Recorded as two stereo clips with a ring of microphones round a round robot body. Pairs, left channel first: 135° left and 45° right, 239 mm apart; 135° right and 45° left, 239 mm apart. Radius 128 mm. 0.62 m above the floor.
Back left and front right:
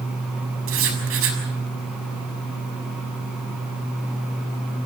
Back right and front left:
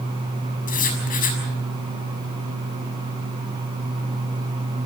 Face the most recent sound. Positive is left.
turn(degrees=-80)